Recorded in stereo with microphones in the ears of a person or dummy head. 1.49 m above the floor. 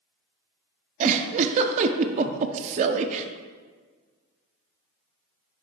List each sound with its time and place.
1.0 s a giggle: 40° right (ahead or behind), 0.5 m